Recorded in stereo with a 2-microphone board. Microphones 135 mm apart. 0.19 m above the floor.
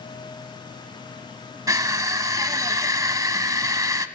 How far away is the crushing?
About 1.1 m.